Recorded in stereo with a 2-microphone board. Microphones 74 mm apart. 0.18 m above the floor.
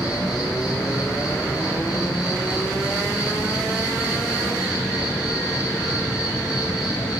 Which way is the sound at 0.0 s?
60° left (ahead or behind).